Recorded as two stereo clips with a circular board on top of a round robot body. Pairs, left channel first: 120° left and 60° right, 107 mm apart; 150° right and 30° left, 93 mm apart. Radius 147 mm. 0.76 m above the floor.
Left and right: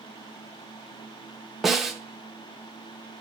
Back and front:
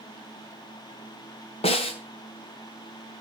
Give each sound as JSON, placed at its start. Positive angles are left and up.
{"t": 1.6, "sound": "a snare drum", "azimuth_deg": -150, "distance_m": 1.3}